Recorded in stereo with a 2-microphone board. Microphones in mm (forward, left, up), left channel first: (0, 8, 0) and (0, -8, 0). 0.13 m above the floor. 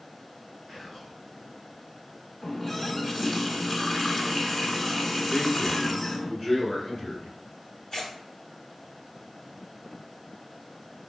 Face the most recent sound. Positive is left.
turn(degrees=30)  # may be behind; listen again after turning